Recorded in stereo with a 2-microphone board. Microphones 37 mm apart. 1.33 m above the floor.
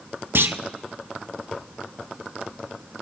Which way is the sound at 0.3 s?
80° right.